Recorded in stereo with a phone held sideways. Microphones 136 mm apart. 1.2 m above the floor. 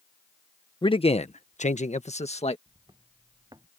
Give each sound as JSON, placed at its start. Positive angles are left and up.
{"t": 0.8, "sound": "a man speaking", "side_deg": 35}
{"t": 2.7, "sound": "footsteps", "side_deg": -30}